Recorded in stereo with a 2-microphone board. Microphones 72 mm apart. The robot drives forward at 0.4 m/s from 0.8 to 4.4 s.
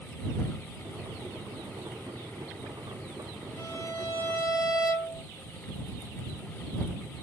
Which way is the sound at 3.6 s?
50° left (ahead or behind).